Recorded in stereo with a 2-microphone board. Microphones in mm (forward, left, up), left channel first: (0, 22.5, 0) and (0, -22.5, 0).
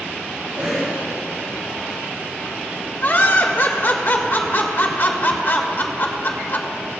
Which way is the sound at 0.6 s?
40° right (ahead or behind).